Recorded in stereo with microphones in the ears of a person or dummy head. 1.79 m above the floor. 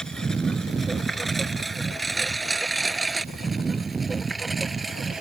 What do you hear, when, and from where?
0.0 s a lawn mower: 5° left (ahead or behind); by 5.2 s centre (ahead or behind)